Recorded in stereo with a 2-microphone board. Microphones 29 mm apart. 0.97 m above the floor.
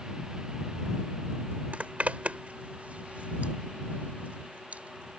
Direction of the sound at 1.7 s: 55° right (ahead or behind).